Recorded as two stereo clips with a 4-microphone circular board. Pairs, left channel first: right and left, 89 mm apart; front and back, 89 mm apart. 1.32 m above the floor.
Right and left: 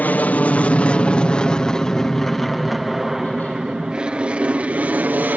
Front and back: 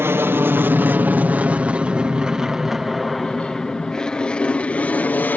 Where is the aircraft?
145° right; by 5.4 s 45° left.